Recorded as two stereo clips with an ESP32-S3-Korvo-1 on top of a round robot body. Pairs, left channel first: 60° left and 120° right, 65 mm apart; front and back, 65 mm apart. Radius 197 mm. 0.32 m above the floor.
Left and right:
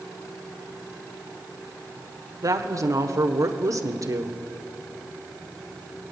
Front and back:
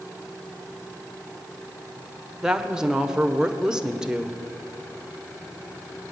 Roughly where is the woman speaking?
Right.